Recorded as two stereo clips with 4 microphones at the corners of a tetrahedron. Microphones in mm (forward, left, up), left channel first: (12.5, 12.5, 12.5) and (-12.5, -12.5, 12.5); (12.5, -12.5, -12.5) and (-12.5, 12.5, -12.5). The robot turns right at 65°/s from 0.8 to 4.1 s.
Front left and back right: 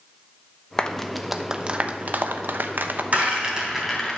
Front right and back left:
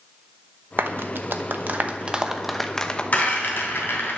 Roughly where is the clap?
Behind left.